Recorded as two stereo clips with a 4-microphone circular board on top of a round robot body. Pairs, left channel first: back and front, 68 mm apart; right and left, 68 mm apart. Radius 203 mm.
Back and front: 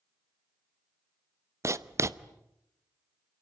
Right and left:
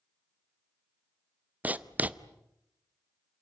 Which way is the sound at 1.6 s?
30° left.